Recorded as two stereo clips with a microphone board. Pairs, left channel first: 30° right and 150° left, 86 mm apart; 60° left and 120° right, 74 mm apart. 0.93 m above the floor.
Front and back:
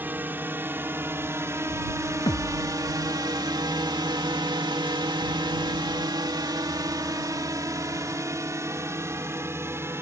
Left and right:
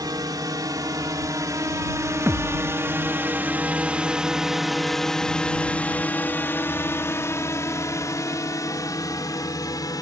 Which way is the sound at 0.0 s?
145° right.